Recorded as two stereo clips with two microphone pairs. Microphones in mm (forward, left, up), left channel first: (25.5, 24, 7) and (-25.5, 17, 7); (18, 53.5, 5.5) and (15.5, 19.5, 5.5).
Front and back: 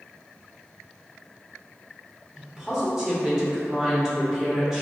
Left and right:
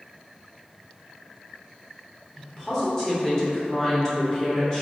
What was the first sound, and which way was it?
A woman speaking, 120° left.